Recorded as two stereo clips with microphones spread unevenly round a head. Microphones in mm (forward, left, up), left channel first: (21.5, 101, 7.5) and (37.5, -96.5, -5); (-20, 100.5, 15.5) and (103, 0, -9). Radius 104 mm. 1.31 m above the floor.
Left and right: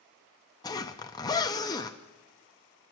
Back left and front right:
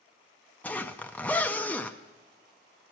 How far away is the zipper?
About 0.6 m.